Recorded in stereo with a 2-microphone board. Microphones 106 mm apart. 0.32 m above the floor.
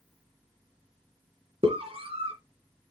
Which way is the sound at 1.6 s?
65° right (ahead or behind).